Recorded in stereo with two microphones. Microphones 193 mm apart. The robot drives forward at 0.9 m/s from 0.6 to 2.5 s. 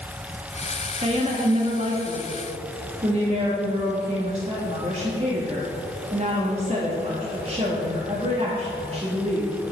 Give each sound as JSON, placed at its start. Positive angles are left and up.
{"t": 1.0, "sound": "a woman speaking", "side_deg": -30, "distance_m": 1.4}